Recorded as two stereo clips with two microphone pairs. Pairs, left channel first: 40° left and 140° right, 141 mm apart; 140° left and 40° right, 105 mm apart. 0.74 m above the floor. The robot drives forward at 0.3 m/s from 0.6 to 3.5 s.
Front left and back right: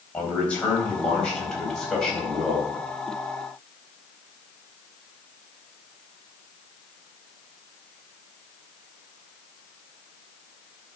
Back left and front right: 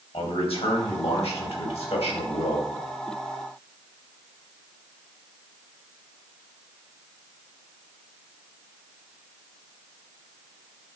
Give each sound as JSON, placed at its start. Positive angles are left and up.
{"t": 0.1, "sound": "a man speaking", "azimuth_deg": 120, "distance_m": 4.0}